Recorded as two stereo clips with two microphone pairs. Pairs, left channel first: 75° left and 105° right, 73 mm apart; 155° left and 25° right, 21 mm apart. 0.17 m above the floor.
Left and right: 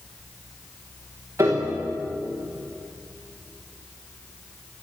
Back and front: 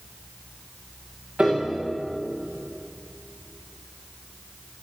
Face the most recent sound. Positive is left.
turn(degrees=-55)